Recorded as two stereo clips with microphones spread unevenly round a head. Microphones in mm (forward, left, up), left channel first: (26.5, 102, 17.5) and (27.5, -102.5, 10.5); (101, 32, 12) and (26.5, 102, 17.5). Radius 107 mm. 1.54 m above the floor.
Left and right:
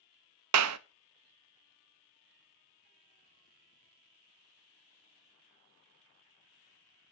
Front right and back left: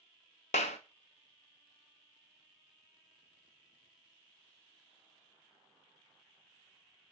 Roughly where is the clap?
Right.